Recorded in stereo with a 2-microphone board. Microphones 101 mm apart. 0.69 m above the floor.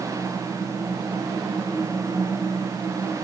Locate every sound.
Only background noise.